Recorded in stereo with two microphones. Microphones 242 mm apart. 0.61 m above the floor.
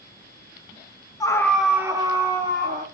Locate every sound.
1.2 s a scream: 15° left (ahead or behind), 0.6 m; by 2.8 s 30° right (ahead or behind), 1.0 m